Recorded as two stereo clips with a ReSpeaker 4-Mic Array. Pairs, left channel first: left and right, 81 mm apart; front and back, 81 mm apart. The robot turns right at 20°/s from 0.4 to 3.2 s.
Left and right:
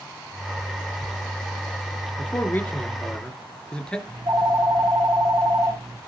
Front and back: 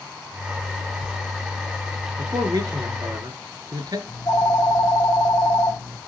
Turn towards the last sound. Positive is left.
turn(degrees=-50)